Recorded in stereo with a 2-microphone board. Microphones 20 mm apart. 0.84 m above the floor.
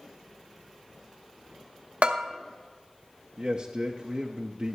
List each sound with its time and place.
2.0 s a bell: 70° right (ahead or behind), 0.7 m
3.4 s a man speaking: 45° right (ahead or behind), 0.6 m